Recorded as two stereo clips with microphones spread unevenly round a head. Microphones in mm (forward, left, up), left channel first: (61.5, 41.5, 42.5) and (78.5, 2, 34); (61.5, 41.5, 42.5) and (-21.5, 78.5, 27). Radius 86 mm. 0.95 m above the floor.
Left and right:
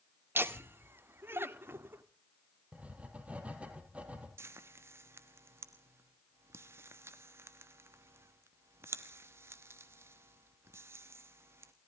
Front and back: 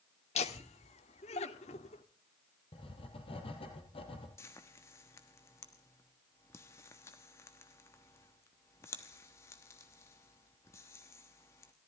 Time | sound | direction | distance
0.3 | laughter | 40° right | 1.9 m
2.7 | writing | 5° right | 4.5 m
4.4 | frying | 95° right | 1.2 m